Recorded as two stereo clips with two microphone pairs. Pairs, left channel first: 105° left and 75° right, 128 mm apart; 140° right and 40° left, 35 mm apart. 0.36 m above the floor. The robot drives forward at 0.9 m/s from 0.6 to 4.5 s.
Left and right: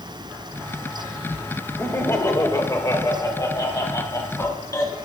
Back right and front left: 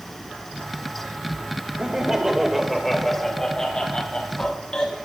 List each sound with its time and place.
1.8 s laughter: 55° left, 1.3 m; by 4.9 s 165° left, 2.5 m